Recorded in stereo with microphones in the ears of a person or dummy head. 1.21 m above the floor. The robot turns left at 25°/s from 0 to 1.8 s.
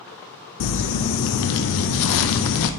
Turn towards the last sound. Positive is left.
turn(degrees=75)